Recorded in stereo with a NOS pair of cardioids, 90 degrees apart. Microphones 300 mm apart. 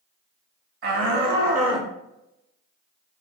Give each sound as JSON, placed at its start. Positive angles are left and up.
{"t": 0.8, "sound": "a shout", "azimuth_deg": -50, "distance_m": 1.1}